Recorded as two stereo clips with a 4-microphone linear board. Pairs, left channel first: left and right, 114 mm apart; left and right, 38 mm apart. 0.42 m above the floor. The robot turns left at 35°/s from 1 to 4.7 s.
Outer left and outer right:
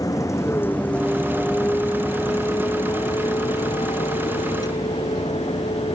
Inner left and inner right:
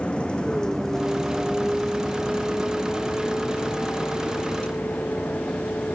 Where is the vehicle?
30° left (ahead or behind); by 6.0 s 65° left (ahead or behind).